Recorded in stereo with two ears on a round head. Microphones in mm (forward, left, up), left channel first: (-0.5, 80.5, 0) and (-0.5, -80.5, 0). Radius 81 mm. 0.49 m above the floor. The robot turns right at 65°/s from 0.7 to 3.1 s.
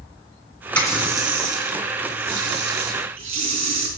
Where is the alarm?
No alarm in this recording.